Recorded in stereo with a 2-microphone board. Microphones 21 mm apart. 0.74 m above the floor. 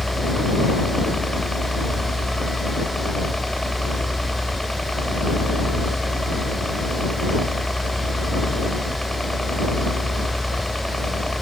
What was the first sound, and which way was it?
A helicopter, 25° left (ahead or behind).